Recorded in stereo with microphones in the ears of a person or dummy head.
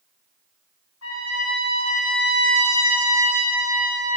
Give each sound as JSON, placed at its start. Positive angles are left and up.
{"t": 1.0, "sound": "a trumpet", "side_deg": 75, "distance_m": 3.0}